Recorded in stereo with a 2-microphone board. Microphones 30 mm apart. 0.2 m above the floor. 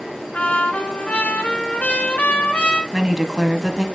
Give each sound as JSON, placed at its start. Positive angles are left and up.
{"t": 0.3, "sound": "a trumpet", "side_deg": 50, "distance_m": 1.4}
{"t": 2.9, "sound": "a woman speaking", "side_deg": -15, "distance_m": 1.1}